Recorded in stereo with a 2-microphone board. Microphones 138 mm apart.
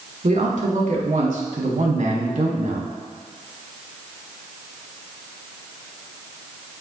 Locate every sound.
0.2 s a man speaking: 60° right (ahead or behind), 2.5 m